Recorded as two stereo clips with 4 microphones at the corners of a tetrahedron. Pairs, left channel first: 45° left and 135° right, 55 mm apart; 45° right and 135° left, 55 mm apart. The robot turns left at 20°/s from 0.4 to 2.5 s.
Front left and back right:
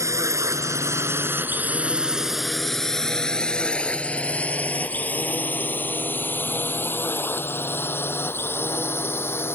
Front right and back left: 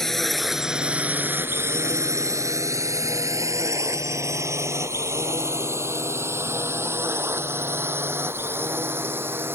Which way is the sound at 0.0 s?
130° right.